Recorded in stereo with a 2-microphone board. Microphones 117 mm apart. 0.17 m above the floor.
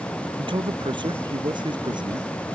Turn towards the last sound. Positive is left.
turn(degrees=-40)  # may be behind; listen again after turning